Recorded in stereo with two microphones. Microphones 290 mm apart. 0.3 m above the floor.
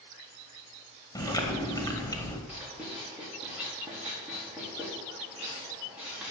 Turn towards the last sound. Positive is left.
turn(degrees=-5)  # may be behind; listen again after turning